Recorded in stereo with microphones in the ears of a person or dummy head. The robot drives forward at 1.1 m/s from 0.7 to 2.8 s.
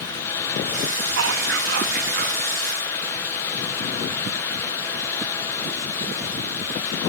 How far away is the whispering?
About 1.9 m.